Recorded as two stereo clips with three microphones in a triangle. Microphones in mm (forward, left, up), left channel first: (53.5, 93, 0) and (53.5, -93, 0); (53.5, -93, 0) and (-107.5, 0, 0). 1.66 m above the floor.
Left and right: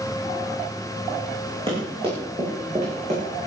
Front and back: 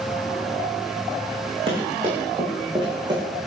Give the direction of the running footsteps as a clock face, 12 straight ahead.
5 o'clock.